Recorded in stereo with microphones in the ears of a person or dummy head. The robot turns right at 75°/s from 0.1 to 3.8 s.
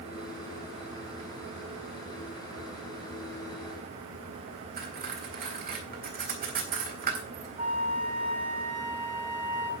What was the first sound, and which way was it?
Cutlery clinking, 45° right (ahead or behind).